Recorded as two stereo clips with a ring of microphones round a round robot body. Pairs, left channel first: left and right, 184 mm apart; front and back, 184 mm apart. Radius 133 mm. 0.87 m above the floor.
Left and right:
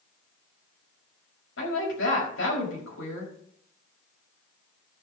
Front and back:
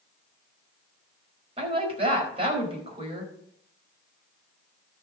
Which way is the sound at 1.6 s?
120° left.